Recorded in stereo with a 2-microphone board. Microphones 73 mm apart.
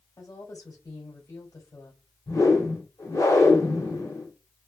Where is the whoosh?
50° left (ahead or behind), 1.3 m.